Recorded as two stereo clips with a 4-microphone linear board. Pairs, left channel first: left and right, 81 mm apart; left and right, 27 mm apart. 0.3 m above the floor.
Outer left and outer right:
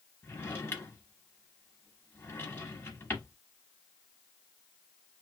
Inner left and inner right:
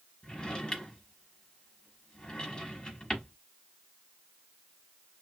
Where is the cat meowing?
No cat meowing in this recording.